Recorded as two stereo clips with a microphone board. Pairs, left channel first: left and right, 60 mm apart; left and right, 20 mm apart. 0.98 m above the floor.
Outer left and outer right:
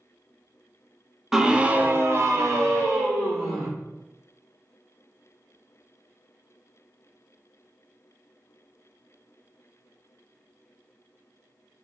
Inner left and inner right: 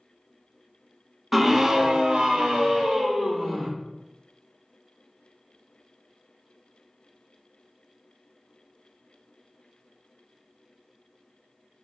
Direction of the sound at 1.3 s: 5° right (ahead or behind).